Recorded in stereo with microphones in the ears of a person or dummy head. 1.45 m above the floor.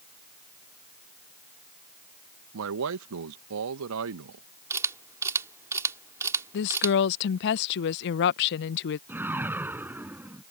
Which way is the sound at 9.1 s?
10° right (ahead or behind).